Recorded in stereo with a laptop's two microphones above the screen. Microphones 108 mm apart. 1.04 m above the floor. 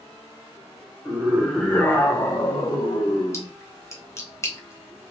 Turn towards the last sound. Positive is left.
turn(degrees=25)  # may be behind; listen again after turning